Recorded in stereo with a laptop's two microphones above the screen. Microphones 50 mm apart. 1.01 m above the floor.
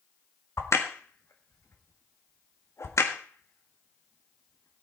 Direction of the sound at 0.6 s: 75° left (ahead or behind).